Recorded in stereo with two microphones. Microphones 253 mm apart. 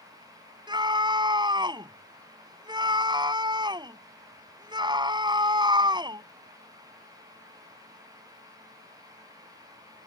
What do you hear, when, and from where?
0.7 s a scream: 15° right (ahead or behind)